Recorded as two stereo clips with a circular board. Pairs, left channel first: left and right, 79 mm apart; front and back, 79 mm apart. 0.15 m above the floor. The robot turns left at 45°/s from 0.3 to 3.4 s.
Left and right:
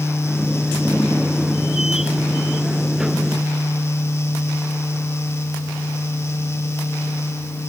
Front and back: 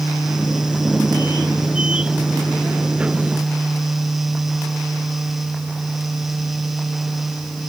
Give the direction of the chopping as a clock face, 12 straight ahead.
No chopping in this recording.